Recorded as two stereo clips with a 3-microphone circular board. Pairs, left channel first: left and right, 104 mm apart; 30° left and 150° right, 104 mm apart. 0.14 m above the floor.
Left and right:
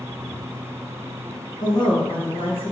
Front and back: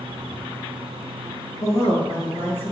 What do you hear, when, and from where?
1.6 s a woman speaking: 75° left, 1.8 m; by 2.7 s 95° left, 3 m